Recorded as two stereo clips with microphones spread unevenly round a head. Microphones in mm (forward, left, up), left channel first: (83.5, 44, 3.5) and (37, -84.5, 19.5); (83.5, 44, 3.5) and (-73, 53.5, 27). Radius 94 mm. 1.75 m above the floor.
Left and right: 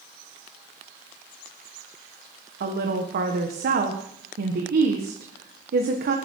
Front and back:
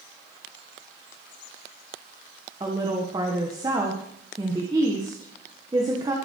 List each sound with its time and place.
2.6 s a woman speaking: 110° right, 1.7 m